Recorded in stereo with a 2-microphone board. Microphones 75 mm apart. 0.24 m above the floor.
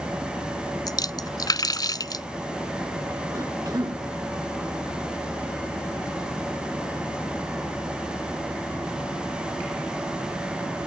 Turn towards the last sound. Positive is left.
turn(degrees=-55)  # may be behind; listen again after turning